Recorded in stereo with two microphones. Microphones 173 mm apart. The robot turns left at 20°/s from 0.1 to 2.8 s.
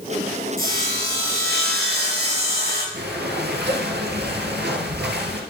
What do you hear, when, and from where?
0.6 s sawing: 60° right, 4 m; by 2.8 s 100° right, 4 m
2.9 s breathing: 80° right, 1.7 m